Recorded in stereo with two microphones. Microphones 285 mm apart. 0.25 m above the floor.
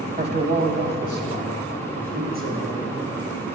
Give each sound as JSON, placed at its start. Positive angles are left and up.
{"t": 0.2, "sound": "a man speaking", "side_deg": -30, "distance_m": 1.2}